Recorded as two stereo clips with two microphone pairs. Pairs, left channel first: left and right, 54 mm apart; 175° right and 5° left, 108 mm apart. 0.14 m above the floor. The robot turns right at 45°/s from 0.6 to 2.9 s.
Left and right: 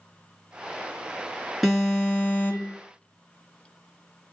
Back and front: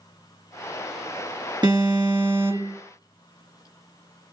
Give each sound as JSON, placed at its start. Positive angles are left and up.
{"t": 1.6, "sound": "an alarm", "azimuth_deg": 5, "distance_m": 2.0}